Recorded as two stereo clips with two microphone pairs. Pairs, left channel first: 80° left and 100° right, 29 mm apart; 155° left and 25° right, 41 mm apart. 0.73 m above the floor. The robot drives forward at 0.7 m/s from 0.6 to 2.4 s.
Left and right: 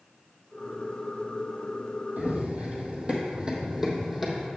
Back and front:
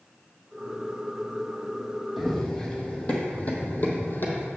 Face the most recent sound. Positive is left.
turn(degrees=175)